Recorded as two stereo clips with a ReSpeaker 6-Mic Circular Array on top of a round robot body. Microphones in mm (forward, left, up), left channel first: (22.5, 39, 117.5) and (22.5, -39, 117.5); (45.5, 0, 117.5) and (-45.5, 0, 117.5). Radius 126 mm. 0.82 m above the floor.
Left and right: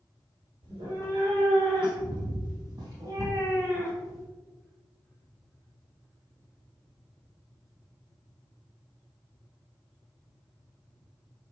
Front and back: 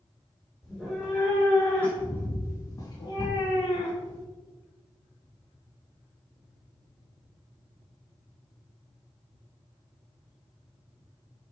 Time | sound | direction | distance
0.6 | a cat meowing | 85° right | 2.5 m